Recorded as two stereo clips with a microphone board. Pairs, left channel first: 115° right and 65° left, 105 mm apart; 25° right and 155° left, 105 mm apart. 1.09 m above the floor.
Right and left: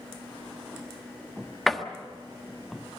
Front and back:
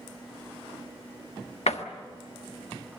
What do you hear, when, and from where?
1.7 s a door slam: 25° right, 1.3 m